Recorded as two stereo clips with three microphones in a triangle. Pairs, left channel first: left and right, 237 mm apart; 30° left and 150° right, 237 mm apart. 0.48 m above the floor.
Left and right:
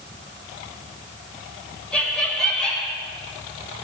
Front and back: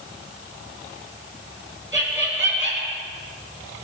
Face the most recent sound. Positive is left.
turn(degrees=175)